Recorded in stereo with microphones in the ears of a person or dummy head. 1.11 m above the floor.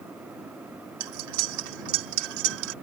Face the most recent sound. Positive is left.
turn(degrees=-65)  # may be behind; listen again after turning